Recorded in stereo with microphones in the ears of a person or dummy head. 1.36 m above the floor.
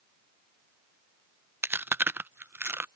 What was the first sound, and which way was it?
Chewing, 10° right (ahead or behind).